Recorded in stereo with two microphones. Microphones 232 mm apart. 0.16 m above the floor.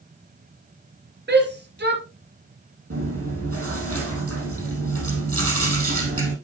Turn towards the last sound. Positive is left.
turn(degrees=-75)  # may be behind; listen again after turning